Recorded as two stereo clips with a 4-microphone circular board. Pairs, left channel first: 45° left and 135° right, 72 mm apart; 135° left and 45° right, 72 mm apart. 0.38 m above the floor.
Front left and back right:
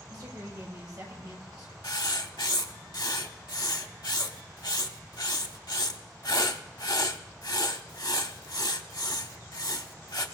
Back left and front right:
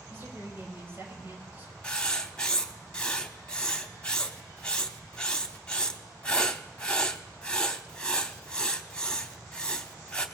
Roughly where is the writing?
Ahead left.